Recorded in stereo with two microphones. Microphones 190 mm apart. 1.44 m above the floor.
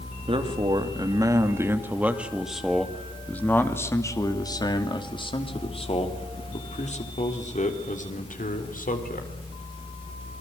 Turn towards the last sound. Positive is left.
turn(degrees=50)  # may be behind; listen again after turning